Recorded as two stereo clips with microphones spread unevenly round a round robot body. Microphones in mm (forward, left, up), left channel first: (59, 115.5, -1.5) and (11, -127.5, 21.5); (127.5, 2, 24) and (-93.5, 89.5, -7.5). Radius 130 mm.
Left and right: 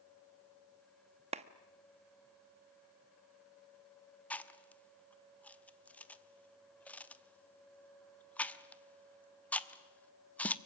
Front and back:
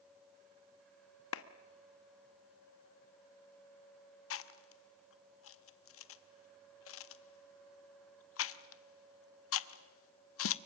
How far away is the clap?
About 1.1 m.